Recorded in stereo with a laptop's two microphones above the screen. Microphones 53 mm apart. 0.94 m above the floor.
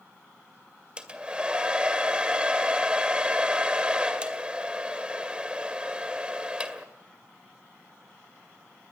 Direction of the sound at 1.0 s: 20° right (ahead or behind).